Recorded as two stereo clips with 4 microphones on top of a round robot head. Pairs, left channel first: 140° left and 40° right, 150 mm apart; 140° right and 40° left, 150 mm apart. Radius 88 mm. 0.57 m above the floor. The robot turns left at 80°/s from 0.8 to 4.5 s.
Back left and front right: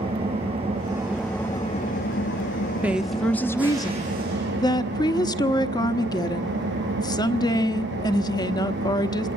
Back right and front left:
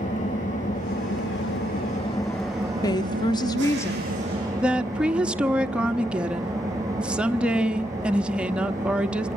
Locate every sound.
0.0 s an engine running: 95° right, 7 m; by 9.4 s 30° right, 7 m
2.8 s a woman speaking: 110° right, 1.0 m; by 9.3 s 115° left, 1.0 m